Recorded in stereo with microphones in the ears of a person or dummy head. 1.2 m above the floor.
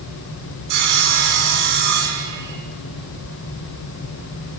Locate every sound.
0.7 s sawing: 65° right (ahead or behind), 4 m